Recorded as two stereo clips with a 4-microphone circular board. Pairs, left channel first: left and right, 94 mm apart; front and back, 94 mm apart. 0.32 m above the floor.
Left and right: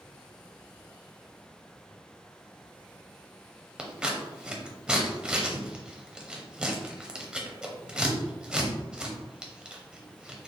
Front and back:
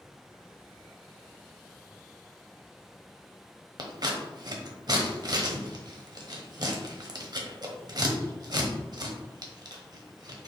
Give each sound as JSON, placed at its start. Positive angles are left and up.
{"t": 3.8, "sound": "scissors", "azimuth_deg": -170, "distance_m": 0.9}